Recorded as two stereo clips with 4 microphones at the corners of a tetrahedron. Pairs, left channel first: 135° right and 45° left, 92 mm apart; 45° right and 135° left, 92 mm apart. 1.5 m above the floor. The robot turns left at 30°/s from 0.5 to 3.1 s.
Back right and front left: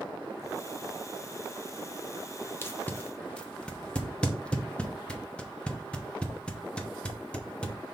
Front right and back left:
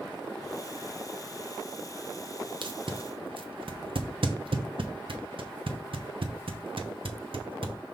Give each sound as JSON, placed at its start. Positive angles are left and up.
{"t": 2.6, "sound": "tape being pulled", "azimuth_deg": 160, "distance_m": 0.8}